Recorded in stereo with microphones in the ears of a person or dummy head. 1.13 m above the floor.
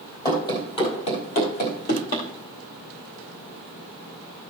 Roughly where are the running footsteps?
Left.